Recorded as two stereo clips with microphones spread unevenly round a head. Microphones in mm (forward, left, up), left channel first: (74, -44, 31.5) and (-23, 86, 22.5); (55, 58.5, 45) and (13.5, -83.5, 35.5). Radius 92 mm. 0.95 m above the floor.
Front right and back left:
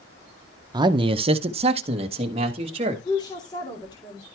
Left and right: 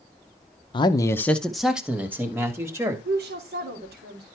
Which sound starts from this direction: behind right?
A woman speaking, at 3.0 s.